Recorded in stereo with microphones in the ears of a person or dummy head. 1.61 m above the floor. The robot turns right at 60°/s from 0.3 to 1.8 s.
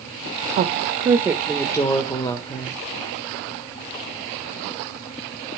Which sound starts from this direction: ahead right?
A woman speaking, at 0.6 s.